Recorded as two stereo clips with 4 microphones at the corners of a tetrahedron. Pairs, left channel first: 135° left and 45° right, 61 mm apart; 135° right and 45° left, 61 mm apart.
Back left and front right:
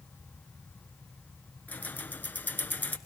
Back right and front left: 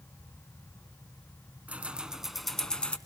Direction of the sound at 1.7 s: 95° left.